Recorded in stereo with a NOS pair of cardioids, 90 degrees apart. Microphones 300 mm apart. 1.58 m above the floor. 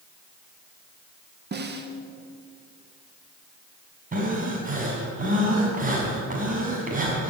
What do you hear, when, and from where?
1.5 s a snare drum: 35° right, 2 m
4.1 s breathing: 25° right, 5.5 m